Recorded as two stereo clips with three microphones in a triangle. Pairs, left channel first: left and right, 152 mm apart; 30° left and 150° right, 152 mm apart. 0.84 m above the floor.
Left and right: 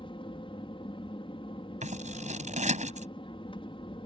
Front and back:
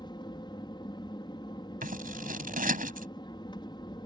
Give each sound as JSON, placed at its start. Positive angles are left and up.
{"t": 0.0, "sound": "an aircraft", "azimuth_deg": 65}
{"t": 1.8, "sound": "scissors", "azimuth_deg": -130}